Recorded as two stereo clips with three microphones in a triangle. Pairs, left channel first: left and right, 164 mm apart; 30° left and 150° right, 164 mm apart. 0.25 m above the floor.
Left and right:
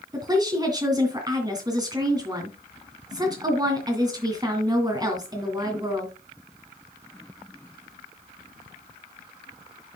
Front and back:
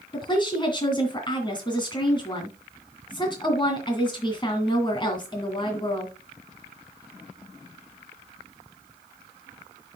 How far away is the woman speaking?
About 2.5 m.